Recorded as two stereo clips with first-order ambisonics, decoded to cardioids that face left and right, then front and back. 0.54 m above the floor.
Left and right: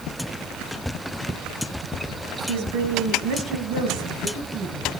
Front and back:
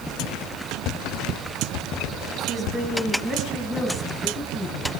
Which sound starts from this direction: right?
A woman speaking, at 2.5 s.